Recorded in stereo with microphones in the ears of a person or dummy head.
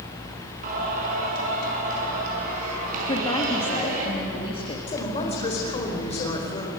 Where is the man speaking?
30° left (ahead or behind), 4 m.